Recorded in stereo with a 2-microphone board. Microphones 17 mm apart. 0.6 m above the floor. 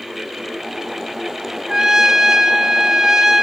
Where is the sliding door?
I don't hear a sliding door.